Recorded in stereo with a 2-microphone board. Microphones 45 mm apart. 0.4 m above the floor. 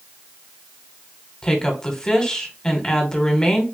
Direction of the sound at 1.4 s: 15° left (ahead or behind).